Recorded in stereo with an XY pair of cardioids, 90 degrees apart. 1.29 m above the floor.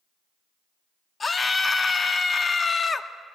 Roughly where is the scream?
Ahead left.